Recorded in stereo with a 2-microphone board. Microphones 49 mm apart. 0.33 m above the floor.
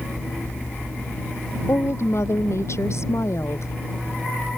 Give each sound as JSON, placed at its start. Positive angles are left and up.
{"t": 1.7, "sound": "a woman speaking", "side_deg": 70}